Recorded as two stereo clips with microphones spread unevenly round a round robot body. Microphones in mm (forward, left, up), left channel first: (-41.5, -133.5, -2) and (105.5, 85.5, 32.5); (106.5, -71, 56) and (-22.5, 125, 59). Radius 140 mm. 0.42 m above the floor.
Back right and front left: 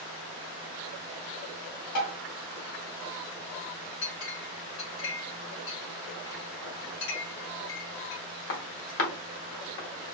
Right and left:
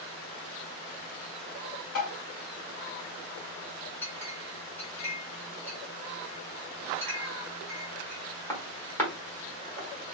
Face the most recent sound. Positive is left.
turn(degrees=-135)